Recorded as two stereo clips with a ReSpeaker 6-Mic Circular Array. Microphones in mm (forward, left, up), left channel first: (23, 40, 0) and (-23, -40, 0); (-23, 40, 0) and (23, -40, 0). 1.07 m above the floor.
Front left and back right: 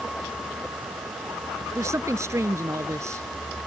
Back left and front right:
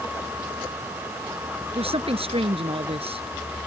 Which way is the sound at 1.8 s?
60° right.